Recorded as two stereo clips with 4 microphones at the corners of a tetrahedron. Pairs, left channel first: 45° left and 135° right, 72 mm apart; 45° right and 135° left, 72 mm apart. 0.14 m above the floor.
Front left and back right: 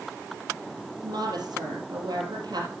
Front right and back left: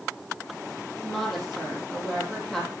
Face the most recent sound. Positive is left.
turn(degrees=-130)